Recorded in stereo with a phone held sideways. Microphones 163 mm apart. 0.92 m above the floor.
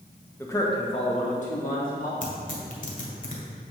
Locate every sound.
0.4 s a man speaking: 15° left (ahead or behind), 1.1 m; by 2.1 s 60° left (ahead or behind), 2.5 m
2.2 s tearing paper: 60° left (ahead or behind), 2 m